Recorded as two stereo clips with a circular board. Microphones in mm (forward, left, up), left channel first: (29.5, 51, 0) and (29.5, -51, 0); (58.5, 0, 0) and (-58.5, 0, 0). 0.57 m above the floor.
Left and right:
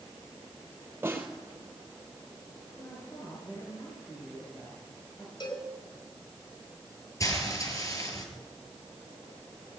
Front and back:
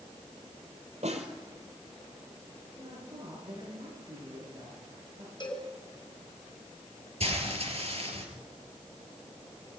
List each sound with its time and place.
1.0 s a snare drum: 160° right, 4.5 m
2.8 s a woman speaking: 140° left, 9.5 m
5.4 s a cowbell: 50° left, 5.5 m
7.2 s frying: 150° left, 5.5 m